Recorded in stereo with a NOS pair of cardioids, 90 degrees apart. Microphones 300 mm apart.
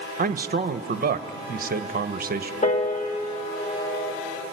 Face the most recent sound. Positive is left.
turn(degrees=25)